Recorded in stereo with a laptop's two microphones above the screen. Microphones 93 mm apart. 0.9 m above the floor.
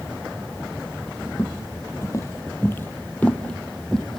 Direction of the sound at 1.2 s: 35° left (ahead or behind).